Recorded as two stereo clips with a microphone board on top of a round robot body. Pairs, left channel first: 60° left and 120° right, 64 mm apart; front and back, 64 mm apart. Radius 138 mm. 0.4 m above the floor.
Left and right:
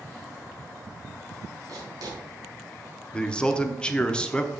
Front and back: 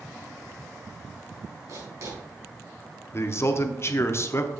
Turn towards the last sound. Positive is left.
turn(degrees=-5)